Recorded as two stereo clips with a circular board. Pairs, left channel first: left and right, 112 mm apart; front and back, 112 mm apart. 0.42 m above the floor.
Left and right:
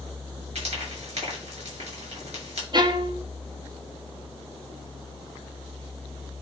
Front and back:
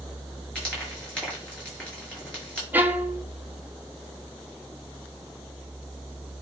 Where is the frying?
80° right, 6 m.